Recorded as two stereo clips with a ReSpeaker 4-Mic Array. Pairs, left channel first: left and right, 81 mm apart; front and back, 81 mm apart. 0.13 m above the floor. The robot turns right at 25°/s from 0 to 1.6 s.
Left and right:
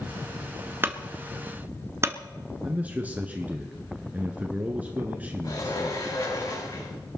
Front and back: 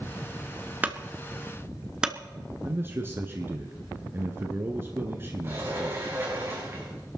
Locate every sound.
0.8 s a clunk: 125° right, 1.2 m; by 2.1 s 105° right, 1.2 m
2.6 s a man speaking: 145° right, 1.6 m
5.4 s a sliding door: 125° left, 5.5 m